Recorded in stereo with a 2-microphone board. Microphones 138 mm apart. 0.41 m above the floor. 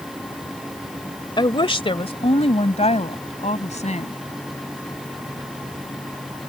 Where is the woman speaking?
35° left (ahead or behind); by 4.1 s 60° left (ahead or behind).